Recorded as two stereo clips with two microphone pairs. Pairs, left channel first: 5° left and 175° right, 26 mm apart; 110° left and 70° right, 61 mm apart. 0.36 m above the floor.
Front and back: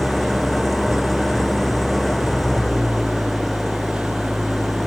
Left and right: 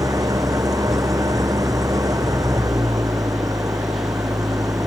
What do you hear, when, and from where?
0.0 s an engine running: 80° right